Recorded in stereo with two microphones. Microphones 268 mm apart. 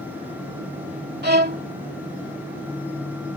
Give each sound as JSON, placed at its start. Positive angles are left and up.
{"t": 1.2, "sound": "a violin", "side_deg": -35}